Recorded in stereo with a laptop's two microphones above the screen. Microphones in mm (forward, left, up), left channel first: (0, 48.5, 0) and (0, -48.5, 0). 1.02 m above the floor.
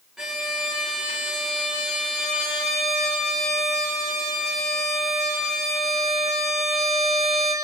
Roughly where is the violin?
Centre.